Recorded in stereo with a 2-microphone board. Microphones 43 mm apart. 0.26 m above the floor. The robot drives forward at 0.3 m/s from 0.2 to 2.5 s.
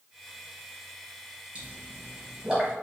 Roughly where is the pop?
Right.